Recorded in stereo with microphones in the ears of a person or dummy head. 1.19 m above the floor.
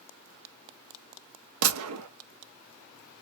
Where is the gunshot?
85° right, 0.6 m.